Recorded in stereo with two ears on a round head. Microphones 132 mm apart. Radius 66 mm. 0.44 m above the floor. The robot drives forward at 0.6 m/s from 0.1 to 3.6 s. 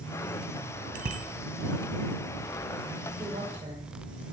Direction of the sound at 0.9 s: 65° right (ahead or behind).